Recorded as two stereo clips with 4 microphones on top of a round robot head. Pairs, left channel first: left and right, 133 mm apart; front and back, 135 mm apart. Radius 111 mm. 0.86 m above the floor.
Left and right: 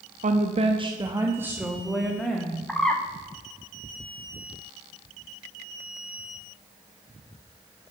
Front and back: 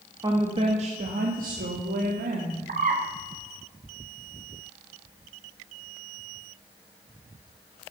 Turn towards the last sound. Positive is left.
turn(degrees=175)